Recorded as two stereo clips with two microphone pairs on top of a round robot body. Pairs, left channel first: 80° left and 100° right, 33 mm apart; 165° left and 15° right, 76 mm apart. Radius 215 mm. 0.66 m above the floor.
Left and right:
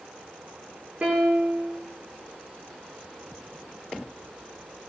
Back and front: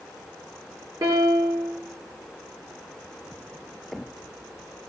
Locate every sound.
1.0 s a piano: 45° right, 9 m